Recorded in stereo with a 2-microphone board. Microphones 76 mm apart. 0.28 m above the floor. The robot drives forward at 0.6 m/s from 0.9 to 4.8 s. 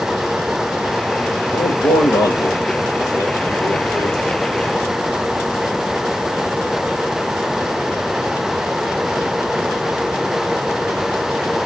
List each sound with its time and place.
1.5 s a man speaking: 70° left (ahead or behind), 6.5 m; by 4.2 s 55° left (ahead or behind), 7 m